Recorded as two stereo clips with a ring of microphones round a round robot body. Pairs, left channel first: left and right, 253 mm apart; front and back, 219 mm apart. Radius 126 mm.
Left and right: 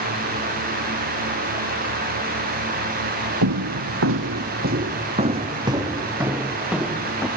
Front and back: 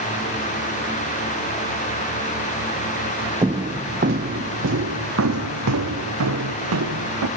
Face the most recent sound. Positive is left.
turn(degrees=180)